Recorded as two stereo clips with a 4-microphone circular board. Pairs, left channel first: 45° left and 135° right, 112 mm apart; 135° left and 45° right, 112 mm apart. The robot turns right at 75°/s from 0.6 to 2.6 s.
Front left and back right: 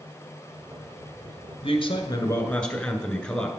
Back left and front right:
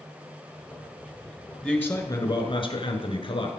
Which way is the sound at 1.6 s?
50° left.